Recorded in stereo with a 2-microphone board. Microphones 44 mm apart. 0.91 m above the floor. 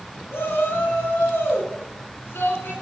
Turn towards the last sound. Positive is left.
turn(degrees=55)  # may be behind; listen again after turning